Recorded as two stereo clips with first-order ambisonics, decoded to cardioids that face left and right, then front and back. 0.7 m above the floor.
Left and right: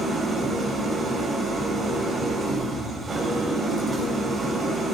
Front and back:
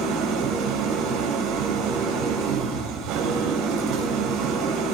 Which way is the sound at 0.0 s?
160° right.